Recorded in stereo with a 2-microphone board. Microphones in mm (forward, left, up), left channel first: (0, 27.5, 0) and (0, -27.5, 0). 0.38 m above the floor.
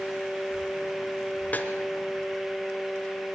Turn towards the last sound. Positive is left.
turn(degrees=30)  # may be behind; listen again after turning